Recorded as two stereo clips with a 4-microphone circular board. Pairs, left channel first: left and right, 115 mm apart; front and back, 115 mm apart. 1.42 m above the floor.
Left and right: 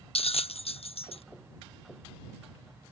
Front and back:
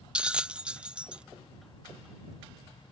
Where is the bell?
100° left.